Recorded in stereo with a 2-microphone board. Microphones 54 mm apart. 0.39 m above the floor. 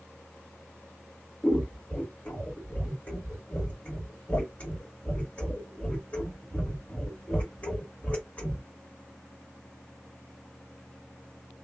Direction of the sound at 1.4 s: 30° left (ahead or behind).